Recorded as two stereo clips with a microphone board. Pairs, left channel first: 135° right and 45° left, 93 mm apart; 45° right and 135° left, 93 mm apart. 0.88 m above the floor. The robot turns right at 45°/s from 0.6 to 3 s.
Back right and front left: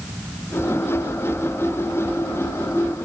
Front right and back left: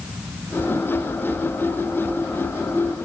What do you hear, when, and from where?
Only background noise.